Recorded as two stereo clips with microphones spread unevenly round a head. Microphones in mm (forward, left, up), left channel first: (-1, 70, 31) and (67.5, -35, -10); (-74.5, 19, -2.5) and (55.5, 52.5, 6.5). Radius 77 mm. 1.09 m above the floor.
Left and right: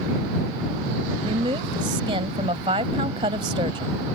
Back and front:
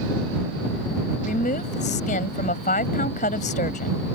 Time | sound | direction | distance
1.2 | a woman speaking | 120° right | ?